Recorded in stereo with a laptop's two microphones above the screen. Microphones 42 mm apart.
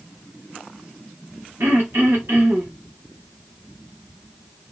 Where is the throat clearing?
75° right (ahead or behind), 1.5 m.